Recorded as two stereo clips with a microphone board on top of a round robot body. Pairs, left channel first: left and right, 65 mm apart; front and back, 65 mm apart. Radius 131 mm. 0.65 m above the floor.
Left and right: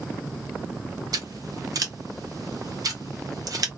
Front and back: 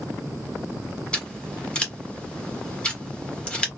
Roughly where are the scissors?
Right.